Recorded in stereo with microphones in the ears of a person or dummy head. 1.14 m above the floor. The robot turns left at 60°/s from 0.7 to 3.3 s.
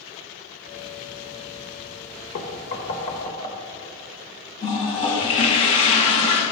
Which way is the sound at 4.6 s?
25° left (ahead or behind).